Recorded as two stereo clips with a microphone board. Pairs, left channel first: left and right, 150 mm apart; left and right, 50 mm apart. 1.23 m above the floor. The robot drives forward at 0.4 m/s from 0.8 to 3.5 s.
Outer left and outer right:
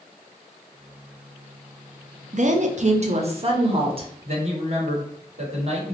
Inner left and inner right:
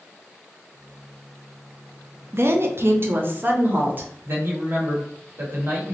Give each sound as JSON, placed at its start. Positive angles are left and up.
{"t": 2.3, "sound": "a woman speaking", "side_deg": -55, "distance_m": 0.5}
{"t": 4.2, "sound": "a man speaking", "side_deg": -45, "distance_m": 1.2}